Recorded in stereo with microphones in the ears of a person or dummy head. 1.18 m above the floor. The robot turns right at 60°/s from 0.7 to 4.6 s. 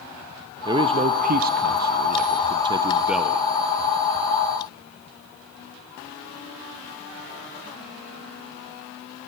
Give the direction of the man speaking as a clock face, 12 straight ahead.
5 o'clock.